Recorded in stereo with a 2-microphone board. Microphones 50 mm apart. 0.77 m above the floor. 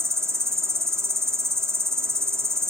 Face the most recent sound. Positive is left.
turn(degrees=-60)  # may be behind; listen again after turning